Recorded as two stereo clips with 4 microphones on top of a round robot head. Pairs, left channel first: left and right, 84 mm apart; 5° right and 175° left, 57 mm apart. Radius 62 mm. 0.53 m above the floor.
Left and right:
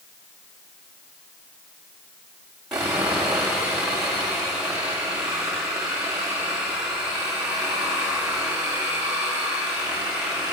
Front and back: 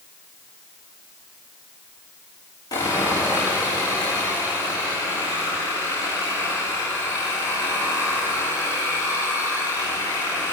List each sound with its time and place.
2.7 s sawing: 5° right, 8.5 m